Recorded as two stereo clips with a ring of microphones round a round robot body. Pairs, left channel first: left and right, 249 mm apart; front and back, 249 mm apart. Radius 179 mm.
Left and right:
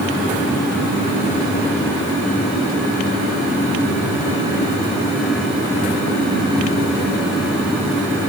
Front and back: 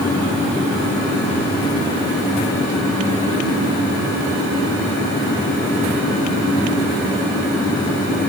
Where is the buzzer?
I don't hear a buzzer.